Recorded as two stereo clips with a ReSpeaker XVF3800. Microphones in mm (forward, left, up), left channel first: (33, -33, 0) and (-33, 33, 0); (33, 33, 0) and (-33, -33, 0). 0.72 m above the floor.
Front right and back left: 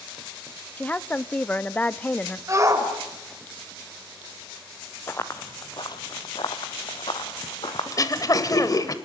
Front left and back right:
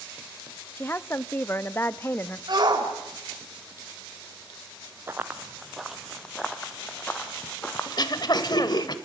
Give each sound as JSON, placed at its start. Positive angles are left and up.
{"t": 0.8, "sound": "a woman speaking", "azimuth_deg": 10, "distance_m": 0.5}
{"t": 2.5, "sound": "a shout", "azimuth_deg": -170, "distance_m": 3.5}
{"t": 5.1, "sound": "running footsteps", "azimuth_deg": -90, "distance_m": 0.8}
{"t": 7.9, "sound": "throat clearing", "azimuth_deg": 5, "distance_m": 1.2}